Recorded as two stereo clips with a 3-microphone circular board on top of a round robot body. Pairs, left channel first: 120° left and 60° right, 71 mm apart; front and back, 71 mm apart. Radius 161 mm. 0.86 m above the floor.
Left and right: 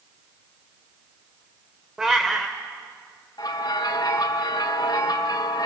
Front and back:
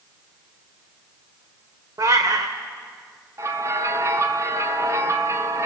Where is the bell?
135° left, 1.6 m.